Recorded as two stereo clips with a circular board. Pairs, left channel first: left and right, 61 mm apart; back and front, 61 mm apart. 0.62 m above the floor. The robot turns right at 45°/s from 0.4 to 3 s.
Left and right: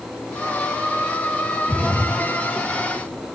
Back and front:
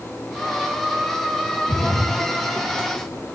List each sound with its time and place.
1.7 s a splash: 165° left, 3.5 m; by 3.3 s 135° right, 3.5 m